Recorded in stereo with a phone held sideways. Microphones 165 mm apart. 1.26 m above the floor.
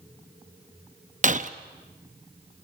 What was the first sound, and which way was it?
Breaking glass, 50° right (ahead or behind).